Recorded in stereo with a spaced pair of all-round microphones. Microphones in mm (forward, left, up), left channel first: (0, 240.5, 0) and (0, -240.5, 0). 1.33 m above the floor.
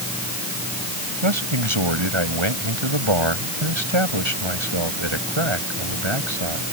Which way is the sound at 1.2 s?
70° right (ahead or behind).